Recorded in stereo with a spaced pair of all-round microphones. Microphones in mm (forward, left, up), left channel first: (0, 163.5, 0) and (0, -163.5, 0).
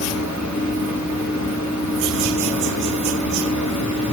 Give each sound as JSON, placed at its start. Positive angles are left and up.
{"t": 0.0, "sound": "a fan", "side_deg": 55, "distance_m": 3.5}